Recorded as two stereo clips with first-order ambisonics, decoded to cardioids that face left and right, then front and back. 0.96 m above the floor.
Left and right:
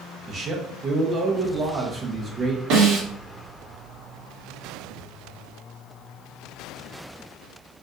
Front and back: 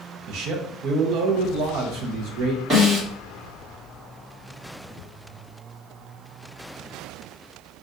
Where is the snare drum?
115° right, 1.5 m.